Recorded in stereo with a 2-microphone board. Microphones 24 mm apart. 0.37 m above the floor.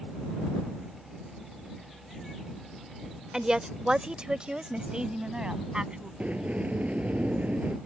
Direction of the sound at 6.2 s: 85° right.